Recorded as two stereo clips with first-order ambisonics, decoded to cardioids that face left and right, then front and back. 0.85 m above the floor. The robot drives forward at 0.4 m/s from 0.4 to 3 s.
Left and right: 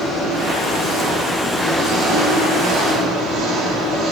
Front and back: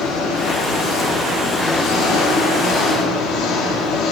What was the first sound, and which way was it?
An engine running, 30° right.